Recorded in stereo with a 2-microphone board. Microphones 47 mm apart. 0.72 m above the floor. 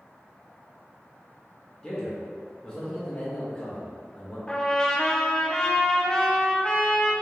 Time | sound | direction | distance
1.8 | a man speaking | 15° left (ahead or behind) | 1.2 m
4.5 | a trumpet | 20° left (ahead or behind) | 0.8 m